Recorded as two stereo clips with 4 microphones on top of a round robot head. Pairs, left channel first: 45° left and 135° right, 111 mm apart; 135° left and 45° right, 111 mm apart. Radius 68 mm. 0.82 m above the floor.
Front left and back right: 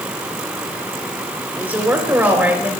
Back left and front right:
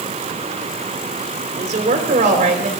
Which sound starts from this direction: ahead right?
A woman speaking, at 1.6 s.